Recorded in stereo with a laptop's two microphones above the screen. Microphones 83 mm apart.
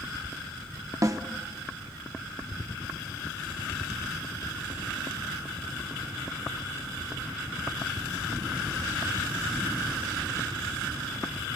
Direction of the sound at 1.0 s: 40° right (ahead or behind).